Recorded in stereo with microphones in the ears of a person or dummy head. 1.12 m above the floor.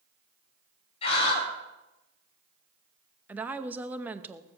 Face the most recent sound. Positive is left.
turn(degrees=-10)  # may be behind; listen again after turning